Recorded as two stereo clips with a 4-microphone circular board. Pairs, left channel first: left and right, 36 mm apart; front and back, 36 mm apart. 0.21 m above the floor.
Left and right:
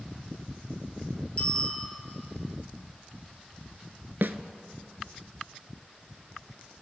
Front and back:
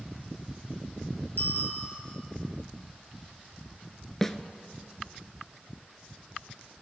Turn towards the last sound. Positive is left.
turn(degrees=-80)